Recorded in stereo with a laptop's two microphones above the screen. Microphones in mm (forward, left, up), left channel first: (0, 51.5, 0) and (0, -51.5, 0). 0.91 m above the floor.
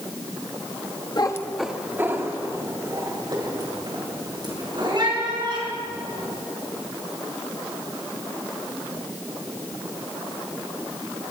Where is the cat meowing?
45° left (ahead or behind), 0.6 m; by 6.3 s 50° right (ahead or behind), 5.5 m.